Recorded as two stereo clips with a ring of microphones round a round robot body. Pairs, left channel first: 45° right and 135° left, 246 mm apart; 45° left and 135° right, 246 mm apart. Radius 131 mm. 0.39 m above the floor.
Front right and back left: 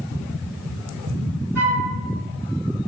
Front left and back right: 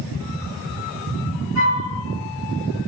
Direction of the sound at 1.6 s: 145° right.